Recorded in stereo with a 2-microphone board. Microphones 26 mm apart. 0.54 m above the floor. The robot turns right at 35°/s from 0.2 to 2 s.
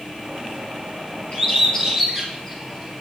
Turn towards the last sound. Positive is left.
turn(degrees=15)  # may be behind; listen again after turning